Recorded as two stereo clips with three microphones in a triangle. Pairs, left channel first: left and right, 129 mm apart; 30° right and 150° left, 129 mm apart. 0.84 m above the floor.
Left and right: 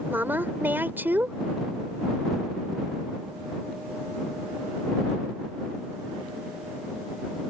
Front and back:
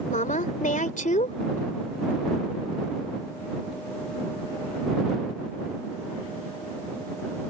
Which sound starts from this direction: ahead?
A woman speaking, at 0.1 s.